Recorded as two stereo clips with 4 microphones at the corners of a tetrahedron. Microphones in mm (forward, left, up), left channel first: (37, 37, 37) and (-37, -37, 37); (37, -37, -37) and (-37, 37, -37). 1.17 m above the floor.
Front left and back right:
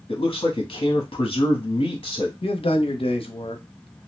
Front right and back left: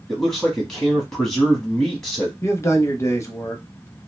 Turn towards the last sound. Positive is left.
turn(degrees=20)